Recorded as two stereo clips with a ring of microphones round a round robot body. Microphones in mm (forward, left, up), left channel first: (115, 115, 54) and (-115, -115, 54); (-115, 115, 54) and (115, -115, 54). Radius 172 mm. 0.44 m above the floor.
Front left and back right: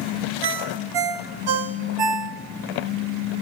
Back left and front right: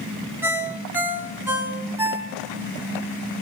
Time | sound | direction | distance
0.4 | a ringtone | 130° right | 1.7 m